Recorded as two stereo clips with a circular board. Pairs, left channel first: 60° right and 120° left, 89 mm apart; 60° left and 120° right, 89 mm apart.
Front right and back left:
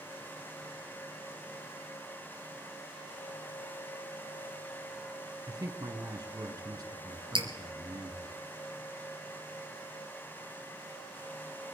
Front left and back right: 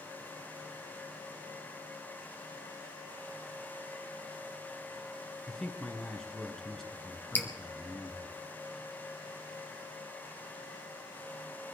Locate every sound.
5.5 s a man speaking: 145° left, 2.5 m
7.3 s dripping: 130° left, 2.5 m